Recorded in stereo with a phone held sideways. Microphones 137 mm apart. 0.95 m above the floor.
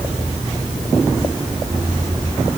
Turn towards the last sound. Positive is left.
No sound to turn to.